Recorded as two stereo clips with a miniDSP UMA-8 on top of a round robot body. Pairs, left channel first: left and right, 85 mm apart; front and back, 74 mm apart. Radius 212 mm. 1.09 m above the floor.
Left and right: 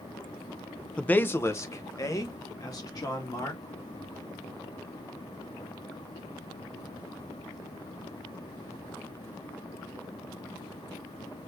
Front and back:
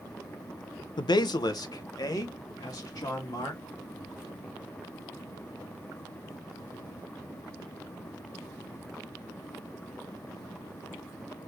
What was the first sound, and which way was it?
A man speaking, 10° left.